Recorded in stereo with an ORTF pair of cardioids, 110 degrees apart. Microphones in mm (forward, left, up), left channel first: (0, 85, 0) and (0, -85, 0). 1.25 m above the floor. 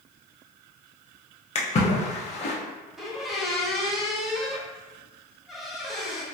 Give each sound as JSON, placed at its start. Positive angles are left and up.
{"t": 1.6, "sound": "a splash", "azimuth_deg": 40, "distance_m": 0.7}
{"t": 3.0, "sound": "a squeak", "azimuth_deg": 0, "distance_m": 0.5}